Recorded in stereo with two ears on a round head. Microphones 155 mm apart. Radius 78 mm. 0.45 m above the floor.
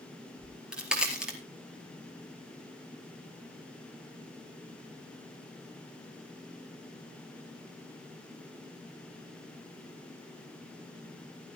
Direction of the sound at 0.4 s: 5° right (ahead or behind).